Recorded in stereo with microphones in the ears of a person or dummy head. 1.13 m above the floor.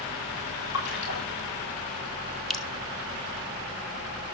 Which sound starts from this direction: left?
A splash, at 0.7 s.